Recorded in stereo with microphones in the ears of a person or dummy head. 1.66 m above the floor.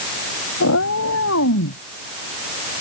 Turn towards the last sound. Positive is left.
turn(degrees=75)  # may be behind; listen again after turning